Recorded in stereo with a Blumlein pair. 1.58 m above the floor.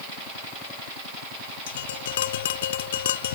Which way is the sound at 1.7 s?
60° left.